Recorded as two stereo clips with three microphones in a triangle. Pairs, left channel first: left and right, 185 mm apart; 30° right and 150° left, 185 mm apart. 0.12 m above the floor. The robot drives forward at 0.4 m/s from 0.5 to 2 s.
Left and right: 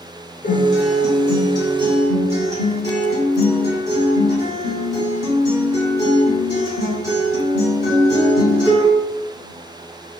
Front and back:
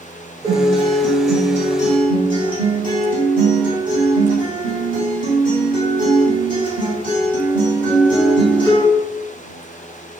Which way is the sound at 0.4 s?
85° left.